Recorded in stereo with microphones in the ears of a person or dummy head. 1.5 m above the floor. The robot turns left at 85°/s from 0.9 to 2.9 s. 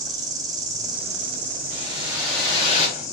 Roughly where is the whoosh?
Behind right.